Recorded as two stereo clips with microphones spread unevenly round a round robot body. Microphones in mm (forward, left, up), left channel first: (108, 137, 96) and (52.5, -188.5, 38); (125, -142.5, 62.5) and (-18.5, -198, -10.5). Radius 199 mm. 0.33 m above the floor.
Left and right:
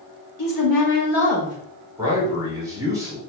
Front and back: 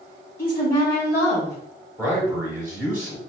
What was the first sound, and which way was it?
A woman speaking, 65° left.